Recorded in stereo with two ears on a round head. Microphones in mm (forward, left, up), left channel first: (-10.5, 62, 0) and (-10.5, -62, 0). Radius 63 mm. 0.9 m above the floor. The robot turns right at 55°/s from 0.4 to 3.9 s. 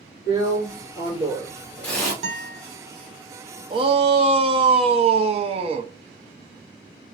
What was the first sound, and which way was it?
A drill, 90° left.